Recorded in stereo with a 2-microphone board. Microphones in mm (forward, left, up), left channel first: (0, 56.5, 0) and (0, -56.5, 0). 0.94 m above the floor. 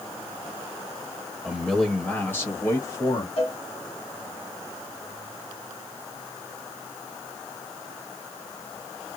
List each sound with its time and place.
1.4 s a man speaking: 5° right (ahead or behind), 1.2 m; by 3.3 s 35° left (ahead or behind), 1.8 m
3.4 s a cowbell: 65° left (ahead or behind), 2 m